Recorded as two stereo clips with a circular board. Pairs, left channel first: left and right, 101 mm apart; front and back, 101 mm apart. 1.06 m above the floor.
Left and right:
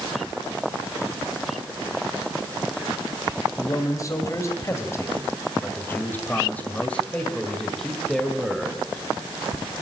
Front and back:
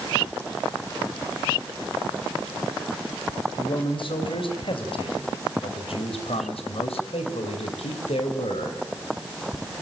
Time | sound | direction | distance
3.6 | a man speaking | 35° left | 6 m